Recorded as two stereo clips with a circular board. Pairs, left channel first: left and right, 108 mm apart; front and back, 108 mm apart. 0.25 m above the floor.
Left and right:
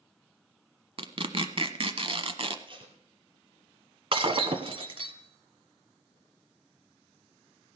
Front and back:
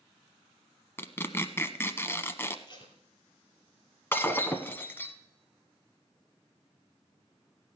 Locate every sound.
1.0 s tearing paper: 65° right, 0.8 m
2.7 s tape being pulled: 50° right, 2.5 m
4.1 s breaking glass: 70° right, 1.0 m